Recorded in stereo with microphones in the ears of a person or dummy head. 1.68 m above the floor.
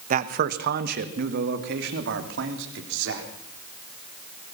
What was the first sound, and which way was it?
A man speaking, 45° right (ahead or behind).